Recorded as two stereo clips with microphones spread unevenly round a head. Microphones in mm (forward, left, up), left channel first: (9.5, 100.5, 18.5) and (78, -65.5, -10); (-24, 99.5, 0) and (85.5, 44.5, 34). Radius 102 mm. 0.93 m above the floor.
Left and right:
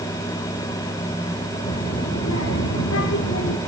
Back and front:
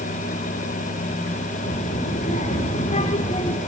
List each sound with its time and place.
1.6 s a child speaking: 155° left, 2 m; by 3.6 s 115° left, 1.7 m